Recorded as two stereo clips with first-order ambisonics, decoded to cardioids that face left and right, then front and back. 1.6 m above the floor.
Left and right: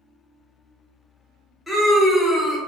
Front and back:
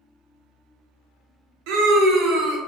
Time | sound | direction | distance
1.7 | a scream | 175° right | 0.7 m